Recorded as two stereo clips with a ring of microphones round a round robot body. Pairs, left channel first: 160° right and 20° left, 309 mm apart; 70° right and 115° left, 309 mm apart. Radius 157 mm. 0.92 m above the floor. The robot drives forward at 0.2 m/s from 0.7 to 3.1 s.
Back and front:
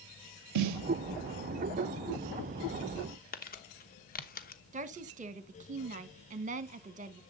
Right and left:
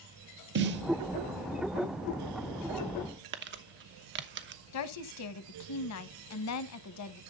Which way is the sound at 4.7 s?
40° right.